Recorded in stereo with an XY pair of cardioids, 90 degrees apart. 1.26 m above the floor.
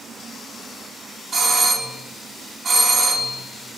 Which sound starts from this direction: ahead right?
A doorbell, at 1.3 s.